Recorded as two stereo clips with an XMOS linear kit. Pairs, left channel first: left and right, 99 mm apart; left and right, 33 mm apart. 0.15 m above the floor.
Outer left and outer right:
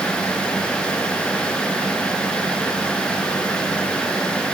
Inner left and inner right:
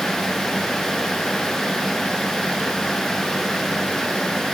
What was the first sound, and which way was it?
Only background noise.